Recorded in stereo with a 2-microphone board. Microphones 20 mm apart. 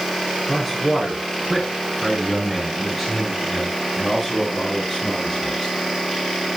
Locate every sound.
0.5 s a man speaking: centre (ahead or behind), 6 m; by 5.7 s 15° left (ahead or behind), 10.5 m